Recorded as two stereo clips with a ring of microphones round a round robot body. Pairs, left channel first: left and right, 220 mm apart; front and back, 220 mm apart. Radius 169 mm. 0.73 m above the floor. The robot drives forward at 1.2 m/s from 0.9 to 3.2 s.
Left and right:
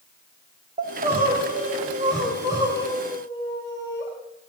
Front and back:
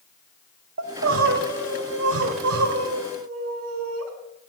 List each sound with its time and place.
0.8 s crying: 155° right, 1.8 m; by 4.1 s 170° right, 4.5 m